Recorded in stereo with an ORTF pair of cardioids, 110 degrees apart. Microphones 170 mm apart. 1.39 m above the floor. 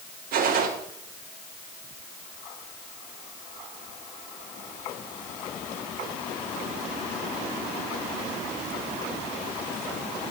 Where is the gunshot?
60° right, 2.5 m.